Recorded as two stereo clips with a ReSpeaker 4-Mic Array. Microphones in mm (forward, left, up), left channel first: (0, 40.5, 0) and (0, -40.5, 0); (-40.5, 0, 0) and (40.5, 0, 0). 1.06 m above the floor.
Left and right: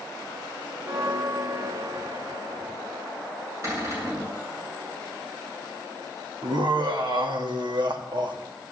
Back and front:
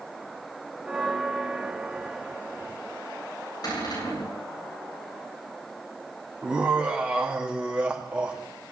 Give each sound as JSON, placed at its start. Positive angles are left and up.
{"t": 0.8, "sound": "a bell", "azimuth_deg": -75, "distance_m": 1.0}
{"t": 3.6, "sound": "a cupboard door", "azimuth_deg": -145, "distance_m": 8.5}
{"t": 6.4, "sound": "laughter", "azimuth_deg": -75, "distance_m": 2.5}